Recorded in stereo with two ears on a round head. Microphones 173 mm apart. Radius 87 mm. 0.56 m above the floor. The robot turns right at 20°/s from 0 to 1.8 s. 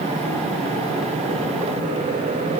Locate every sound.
Only background noise.